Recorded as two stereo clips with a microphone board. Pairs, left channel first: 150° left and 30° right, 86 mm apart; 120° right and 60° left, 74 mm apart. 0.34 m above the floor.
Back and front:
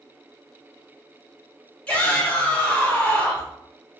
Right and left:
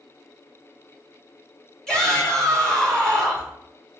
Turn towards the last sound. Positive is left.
turn(degrees=180)